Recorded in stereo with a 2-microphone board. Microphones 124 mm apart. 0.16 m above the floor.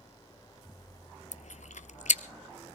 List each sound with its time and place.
1.3 s chewing: 75° left (ahead or behind), 0.8 m